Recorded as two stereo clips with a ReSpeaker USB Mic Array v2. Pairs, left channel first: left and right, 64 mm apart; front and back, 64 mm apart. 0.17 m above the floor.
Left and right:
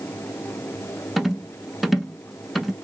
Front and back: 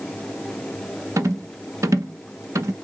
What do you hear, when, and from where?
1.2 s a rattle: straight behind, 0.6 m